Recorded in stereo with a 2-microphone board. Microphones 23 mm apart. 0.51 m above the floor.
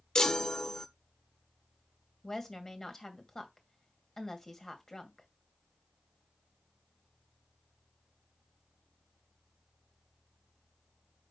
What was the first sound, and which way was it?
A chime, 25° left (ahead or behind).